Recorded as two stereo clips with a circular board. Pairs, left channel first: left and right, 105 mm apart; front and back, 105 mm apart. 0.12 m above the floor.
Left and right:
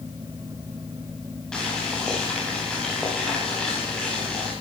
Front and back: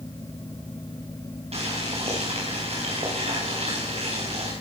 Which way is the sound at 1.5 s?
175° left.